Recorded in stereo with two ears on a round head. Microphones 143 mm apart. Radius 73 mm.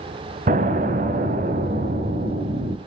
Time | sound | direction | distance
0.5 | an explosion | 45° right (ahead or behind) | 1.2 m